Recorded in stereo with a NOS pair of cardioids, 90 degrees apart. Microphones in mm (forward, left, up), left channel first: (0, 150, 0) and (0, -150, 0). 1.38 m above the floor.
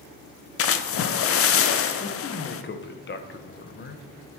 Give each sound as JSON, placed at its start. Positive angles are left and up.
{"t": 0.6, "sound": "a splash", "azimuth_deg": 50, "distance_m": 0.7}
{"t": 2.0, "sound": "a man speaking", "azimuth_deg": 40, "distance_m": 1.0}